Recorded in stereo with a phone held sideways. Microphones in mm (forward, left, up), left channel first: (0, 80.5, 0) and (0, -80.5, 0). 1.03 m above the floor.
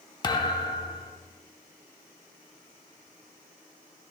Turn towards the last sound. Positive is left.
turn(degrees=30)  # may be behind; listen again after turning